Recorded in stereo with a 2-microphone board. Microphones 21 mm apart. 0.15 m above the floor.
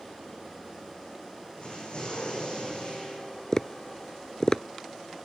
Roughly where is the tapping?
Left.